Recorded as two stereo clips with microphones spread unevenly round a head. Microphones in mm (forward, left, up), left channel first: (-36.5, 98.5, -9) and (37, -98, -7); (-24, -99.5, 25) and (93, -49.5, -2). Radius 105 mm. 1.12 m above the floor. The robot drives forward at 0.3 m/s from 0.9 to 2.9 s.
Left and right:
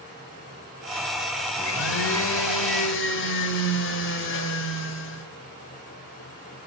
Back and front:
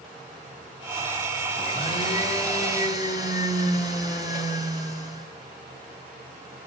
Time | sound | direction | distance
1.6 | a blender | 140° left | 3 m